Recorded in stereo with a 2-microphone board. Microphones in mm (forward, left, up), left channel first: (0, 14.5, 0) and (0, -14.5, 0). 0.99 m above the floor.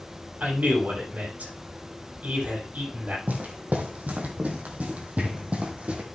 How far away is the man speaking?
About 6 m.